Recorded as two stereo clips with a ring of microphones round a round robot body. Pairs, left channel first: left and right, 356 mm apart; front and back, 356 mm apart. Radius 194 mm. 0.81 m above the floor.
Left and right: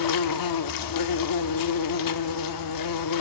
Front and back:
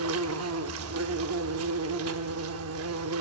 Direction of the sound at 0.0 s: 125° left.